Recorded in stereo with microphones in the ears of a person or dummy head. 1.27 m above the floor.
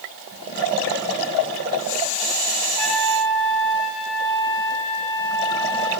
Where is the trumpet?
55° left (ahead or behind), 5 m.